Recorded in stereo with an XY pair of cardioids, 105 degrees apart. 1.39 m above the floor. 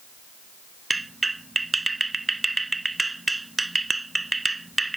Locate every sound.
0.9 s a clap: 15° right